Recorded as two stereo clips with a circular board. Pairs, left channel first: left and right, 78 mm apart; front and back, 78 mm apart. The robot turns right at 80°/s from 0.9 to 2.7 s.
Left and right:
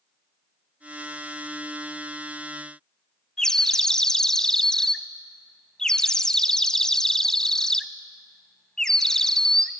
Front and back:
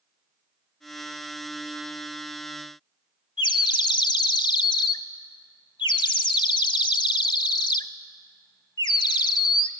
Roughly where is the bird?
Ahead.